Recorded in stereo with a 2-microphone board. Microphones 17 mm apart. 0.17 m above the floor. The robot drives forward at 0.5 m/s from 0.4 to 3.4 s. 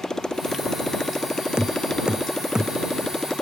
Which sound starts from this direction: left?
A motorcycle, at 0.0 s.